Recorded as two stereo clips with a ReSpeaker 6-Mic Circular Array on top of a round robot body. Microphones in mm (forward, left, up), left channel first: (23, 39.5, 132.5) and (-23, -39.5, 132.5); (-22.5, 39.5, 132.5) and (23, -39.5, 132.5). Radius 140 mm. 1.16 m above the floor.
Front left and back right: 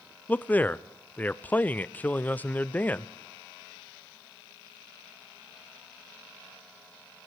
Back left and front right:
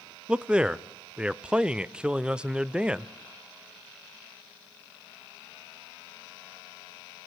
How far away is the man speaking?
About 0.6 m.